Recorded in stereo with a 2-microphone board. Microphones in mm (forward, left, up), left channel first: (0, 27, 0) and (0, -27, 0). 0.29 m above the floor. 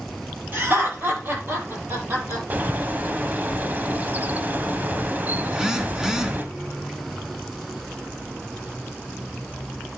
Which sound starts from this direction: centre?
A phone buzzing, at 5.5 s.